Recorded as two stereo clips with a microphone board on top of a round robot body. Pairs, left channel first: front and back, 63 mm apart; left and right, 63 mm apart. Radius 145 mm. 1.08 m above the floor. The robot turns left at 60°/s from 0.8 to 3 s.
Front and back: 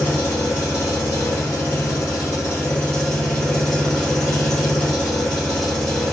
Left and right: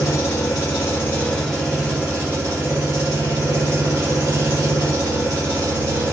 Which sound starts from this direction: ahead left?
An engine running, at 0.0 s.